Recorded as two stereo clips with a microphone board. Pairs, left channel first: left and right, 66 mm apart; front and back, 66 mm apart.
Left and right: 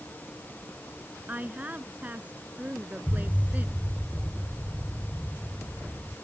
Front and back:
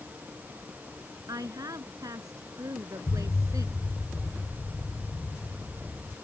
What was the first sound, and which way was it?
A woman speaking, 155° right.